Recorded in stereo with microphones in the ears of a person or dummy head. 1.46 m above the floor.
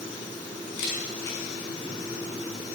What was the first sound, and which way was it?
A camera shutter, 75° left (ahead or behind).